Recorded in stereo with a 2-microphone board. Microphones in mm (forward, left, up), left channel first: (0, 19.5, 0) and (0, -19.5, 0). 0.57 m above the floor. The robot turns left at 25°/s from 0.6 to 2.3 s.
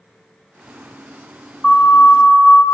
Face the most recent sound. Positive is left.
turn(degrees=40)  # may be behind; listen again after turning